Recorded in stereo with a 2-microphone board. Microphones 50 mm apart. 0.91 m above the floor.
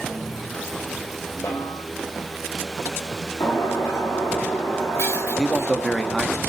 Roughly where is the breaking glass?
Left.